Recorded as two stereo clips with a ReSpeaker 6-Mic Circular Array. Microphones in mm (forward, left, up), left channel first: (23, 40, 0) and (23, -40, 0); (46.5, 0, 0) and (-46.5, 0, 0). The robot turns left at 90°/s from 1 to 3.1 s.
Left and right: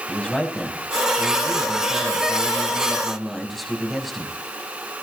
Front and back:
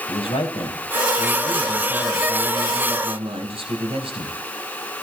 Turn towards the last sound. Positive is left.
turn(degrees=180)